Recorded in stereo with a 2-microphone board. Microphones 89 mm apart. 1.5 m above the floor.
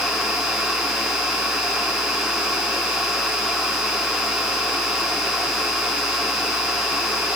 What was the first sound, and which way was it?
Only background noise.